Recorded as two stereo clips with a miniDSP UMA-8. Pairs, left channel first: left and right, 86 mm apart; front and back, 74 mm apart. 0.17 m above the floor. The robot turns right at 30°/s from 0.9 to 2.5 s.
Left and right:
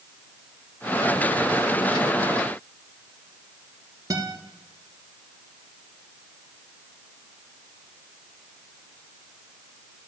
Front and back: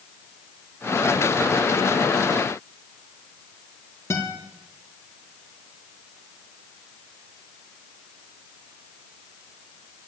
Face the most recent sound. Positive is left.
turn(degrees=-45)